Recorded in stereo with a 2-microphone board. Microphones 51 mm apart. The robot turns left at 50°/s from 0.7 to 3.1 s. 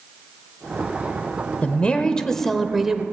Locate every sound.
1.6 s a woman speaking: 55° left, 1.2 m; by 3.0 s 15° right, 1.2 m